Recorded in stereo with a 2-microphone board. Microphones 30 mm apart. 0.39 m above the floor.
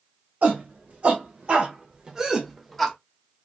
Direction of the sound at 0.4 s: 50° right (ahead or behind).